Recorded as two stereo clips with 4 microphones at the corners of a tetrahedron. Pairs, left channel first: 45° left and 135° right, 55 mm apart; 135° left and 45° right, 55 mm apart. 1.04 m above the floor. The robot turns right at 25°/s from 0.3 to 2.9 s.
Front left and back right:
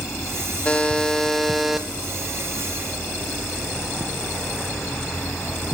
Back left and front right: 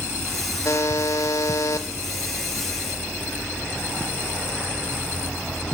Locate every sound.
0.7 s a buzzer: 110° left, 1.5 m; by 1.9 s 140° left, 1.5 m